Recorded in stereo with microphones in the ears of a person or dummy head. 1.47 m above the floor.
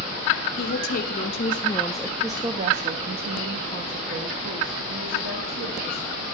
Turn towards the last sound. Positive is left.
turn(degrees=-75)  # may be behind; listen again after turning